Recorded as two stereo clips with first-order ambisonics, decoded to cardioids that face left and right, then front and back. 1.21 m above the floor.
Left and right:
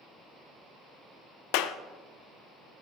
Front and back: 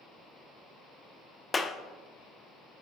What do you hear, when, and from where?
1.5 s a clap: 75° left, 0.6 m